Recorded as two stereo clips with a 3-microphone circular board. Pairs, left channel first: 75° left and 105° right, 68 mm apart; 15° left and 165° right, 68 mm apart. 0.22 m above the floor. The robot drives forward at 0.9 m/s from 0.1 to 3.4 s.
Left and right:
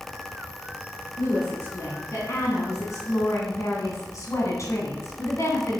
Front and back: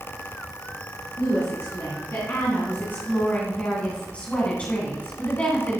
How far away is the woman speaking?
About 3 m.